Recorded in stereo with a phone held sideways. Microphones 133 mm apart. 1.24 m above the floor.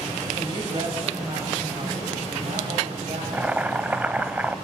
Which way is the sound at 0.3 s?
40° right (ahead or behind).